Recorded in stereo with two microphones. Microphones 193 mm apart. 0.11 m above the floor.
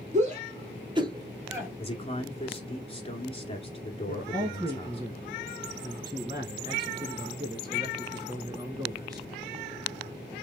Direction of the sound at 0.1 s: 40° right (ahead or behind).